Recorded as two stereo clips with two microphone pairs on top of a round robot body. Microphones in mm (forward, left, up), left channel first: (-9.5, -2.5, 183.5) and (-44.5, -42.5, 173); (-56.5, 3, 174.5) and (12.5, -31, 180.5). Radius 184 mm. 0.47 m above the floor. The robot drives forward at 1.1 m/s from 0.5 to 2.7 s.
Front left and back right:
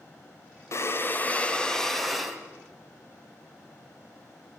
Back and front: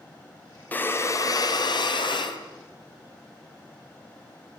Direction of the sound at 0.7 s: 85° left.